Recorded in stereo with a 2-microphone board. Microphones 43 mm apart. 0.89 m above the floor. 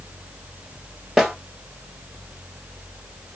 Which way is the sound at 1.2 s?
5° right (ahead or behind).